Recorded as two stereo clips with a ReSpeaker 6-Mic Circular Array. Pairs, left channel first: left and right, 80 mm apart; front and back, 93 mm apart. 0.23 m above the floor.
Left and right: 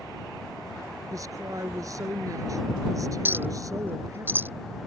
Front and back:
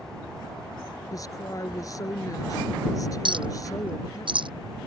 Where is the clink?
155° right.